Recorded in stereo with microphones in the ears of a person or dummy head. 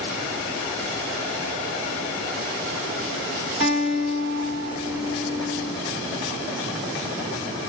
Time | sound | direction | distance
3.6 | a guitar | 40° right (ahead or behind) | 1.7 m